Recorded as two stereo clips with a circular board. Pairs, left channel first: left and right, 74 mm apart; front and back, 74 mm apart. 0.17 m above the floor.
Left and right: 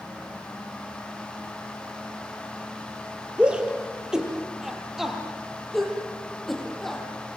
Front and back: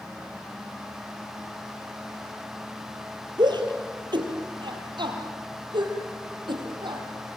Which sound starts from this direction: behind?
A shout, at 3.4 s.